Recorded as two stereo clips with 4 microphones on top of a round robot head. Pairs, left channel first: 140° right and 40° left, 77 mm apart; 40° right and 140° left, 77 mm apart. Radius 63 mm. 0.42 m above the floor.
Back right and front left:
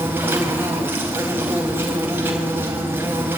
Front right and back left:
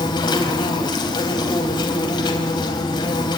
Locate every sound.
0.0 s an insect: 20° right, 3.5 m